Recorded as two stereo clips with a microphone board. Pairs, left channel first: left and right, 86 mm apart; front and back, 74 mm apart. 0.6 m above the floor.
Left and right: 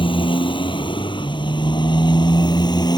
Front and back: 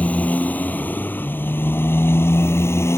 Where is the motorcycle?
70° left; by 3.0 s 50° left.